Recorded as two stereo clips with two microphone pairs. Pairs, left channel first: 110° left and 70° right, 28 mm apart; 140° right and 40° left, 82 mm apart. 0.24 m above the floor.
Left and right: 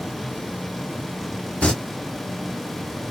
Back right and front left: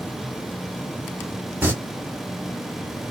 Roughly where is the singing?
Left.